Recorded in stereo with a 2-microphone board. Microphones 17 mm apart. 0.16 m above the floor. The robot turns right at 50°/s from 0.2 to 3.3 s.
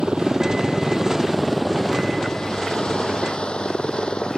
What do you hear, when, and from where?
0.0 s a helicopter: 75° right (ahead or behind); by 4.4 s 75° left (ahead or behind)